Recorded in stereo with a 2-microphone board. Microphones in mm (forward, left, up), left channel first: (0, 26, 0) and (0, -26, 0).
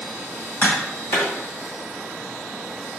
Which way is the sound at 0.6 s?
40° left (ahead or behind).